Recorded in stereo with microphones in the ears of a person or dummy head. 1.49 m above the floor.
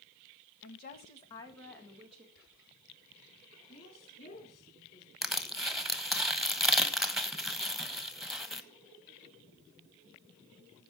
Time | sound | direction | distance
0.6 | a woman speaking | 60° left (ahead or behind) | 1.8 m
2.4 | whispering | 75° left (ahead or behind) | 7 m
3.7 | a woman speaking | 35° left (ahead or behind) | 5 m
5.2 | crushing | 5° right (ahead or behind) | 1.0 m